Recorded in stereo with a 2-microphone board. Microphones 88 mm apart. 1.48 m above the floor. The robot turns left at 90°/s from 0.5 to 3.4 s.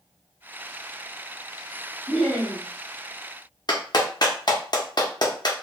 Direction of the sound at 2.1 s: 20° left.